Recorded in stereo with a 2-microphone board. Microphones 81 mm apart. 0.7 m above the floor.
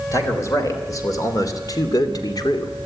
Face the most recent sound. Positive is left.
turn(degrees=60)  # may be behind; listen again after turning